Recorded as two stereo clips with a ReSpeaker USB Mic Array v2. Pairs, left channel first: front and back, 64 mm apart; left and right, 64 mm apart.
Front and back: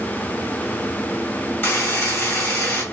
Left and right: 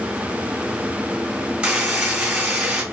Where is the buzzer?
25° right, 1.4 m.